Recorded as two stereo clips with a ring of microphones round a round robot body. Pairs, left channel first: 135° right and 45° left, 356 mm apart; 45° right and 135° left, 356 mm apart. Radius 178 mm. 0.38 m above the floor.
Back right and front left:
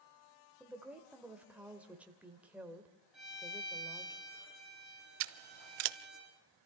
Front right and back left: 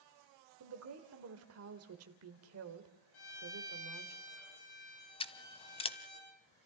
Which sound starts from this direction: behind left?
A woman speaking, at 0.6 s.